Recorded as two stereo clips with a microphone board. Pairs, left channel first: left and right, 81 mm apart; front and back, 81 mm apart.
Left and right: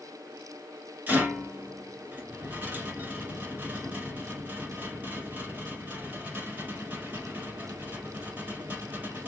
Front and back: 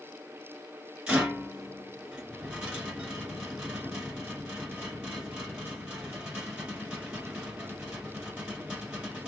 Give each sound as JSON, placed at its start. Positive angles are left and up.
{"t": 1.1, "sound": "a rattle", "azimuth_deg": -115, "distance_m": 1.5}